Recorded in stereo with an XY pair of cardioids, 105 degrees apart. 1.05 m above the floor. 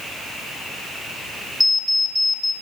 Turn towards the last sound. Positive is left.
turn(degrees=10)